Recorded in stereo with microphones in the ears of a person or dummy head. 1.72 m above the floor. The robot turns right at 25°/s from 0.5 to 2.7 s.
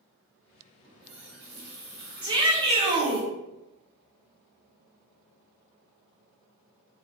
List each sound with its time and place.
0.8 s a running tap: 95° right, 0.9 m; by 3.2 s 50° right, 0.9 m
2.2 s a shout: 15° right (ahead or behind), 0.9 m; by 3.3 s 30° right (ahead or behind), 0.9 m